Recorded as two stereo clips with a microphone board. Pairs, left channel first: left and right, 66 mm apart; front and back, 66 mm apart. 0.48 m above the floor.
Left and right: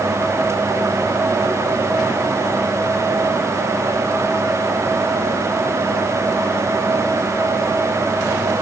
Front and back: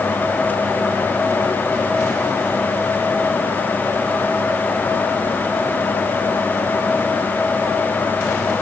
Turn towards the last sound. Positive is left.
No sound to turn to.